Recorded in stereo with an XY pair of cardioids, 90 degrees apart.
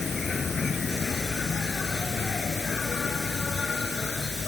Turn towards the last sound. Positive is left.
turn(degrees=40)